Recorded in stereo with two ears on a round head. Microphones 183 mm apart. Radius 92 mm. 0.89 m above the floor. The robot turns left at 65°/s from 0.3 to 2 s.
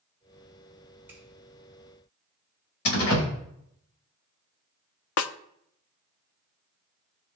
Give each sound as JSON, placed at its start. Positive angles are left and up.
{"t": 1.1, "sound": "a finger snap", "side_deg": -10, "distance_m": 5.0}
{"t": 2.9, "sound": "a door slam", "side_deg": 80, "distance_m": 3.5}
{"t": 5.2, "sound": "a snare drum", "side_deg": 75, "distance_m": 0.6}